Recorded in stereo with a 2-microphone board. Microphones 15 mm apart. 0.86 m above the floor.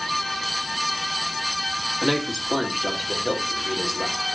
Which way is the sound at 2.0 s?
35° right (ahead or behind).